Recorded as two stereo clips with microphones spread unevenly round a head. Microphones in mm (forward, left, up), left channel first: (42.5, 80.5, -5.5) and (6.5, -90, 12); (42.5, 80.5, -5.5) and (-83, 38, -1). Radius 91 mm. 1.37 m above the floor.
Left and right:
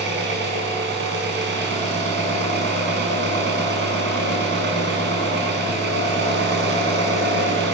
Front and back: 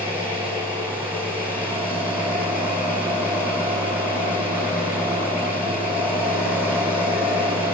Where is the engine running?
80° right, 5.5 m.